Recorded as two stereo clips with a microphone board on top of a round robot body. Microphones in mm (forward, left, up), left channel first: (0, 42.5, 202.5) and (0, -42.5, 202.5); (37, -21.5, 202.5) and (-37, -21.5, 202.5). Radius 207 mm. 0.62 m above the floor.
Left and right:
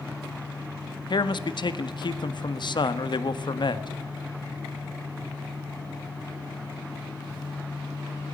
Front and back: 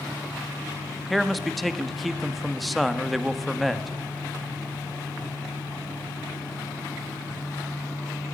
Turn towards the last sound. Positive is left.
turn(degrees=90)